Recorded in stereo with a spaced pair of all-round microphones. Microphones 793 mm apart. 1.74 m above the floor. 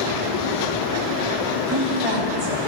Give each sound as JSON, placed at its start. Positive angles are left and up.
{"t": 1.7, "sound": "a woman speaking", "side_deg": -35, "distance_m": 3.5}